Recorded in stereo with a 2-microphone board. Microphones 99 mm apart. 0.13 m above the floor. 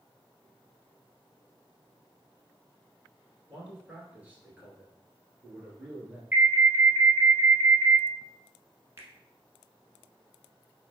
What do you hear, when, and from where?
3.5 s a man speaking: 15° right (ahead or behind), 1.8 m
6.3 s an alarm: 20° right (ahead or behind), 1.4 m
9.0 s a finger snap: 30° right (ahead or behind), 0.9 m